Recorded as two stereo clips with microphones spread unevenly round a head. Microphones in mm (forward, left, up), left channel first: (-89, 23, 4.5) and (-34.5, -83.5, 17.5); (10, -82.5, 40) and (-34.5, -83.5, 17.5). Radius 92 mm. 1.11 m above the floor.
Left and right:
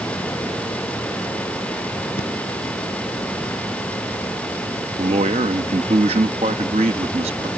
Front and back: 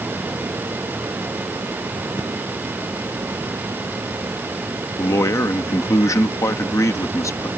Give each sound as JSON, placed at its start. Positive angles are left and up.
{"t": 2.2, "sound": "breathing", "azimuth_deg": 80}
{"t": 5.0, "sound": "a man speaking", "azimuth_deg": -5}